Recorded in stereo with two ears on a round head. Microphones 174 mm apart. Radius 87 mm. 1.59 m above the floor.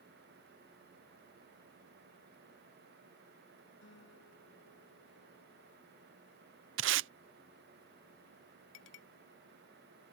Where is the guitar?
65° left (ahead or behind).